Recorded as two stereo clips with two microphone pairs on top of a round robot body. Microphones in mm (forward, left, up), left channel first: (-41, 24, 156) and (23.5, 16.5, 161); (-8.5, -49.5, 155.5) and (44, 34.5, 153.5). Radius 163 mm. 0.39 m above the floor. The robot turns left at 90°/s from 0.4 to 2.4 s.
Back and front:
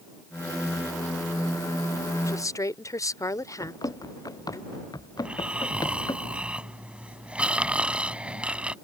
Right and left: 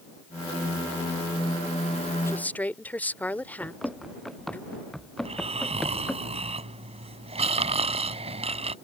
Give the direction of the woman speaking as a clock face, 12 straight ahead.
6 o'clock.